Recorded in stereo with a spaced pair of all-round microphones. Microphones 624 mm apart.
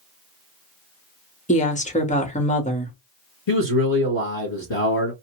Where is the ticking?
I don't hear ticking.